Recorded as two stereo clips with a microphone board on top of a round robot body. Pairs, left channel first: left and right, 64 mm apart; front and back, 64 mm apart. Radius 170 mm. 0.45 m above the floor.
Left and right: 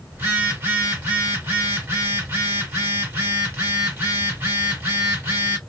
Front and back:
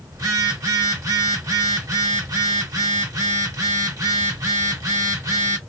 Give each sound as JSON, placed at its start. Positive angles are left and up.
{"t": 0.1, "sound": "a phone buzzing", "azimuth_deg": -150, "distance_m": 1.2}